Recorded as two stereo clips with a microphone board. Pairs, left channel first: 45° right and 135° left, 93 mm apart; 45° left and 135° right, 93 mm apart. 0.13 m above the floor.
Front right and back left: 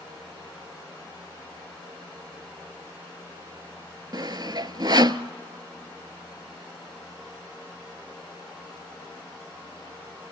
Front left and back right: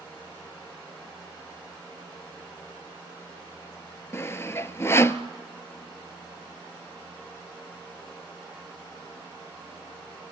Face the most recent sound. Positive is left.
turn(degrees=105)